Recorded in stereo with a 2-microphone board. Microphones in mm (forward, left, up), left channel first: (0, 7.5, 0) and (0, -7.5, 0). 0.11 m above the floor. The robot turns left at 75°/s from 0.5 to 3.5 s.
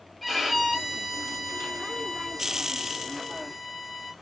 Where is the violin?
170° right, 1.4 m; by 4.1 s 35° right, 1.4 m.